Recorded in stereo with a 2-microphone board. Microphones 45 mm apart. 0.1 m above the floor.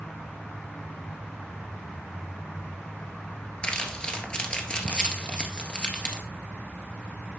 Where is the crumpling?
25° left (ahead or behind), 1.6 m.